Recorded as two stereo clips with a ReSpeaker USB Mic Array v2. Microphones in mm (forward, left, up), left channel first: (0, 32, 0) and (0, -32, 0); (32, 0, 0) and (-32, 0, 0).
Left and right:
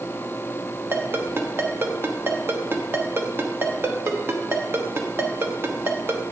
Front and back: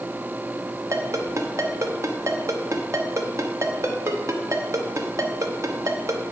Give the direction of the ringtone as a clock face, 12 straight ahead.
5 o'clock.